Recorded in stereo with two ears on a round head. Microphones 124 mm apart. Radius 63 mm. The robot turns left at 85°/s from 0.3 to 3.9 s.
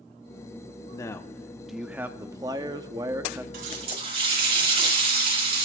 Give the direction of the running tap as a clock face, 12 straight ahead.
4 o'clock.